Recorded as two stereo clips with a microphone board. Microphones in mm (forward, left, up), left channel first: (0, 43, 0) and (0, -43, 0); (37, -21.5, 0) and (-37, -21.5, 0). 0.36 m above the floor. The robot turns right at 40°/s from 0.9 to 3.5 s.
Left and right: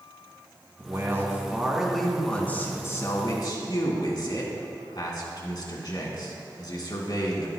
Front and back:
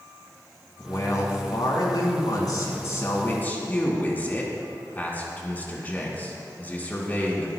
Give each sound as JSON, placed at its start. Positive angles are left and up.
{"t": 0.8, "sound": "a man speaking", "azimuth_deg": -40, "distance_m": 3.0}